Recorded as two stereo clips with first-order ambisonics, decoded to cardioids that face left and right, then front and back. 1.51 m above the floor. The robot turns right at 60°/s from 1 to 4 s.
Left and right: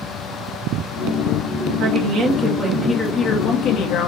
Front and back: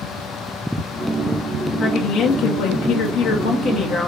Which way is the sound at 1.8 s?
65° right.